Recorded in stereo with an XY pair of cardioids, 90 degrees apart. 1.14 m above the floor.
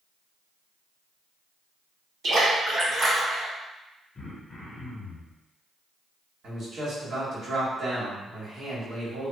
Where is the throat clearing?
45° left, 0.7 m.